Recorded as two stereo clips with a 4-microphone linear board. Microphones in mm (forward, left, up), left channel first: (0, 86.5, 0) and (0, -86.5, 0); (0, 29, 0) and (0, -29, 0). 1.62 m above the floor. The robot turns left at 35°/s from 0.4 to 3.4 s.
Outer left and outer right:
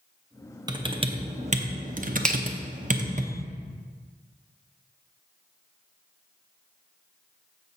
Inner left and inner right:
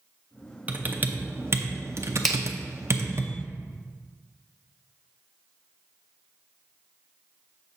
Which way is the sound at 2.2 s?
5° left (ahead or behind).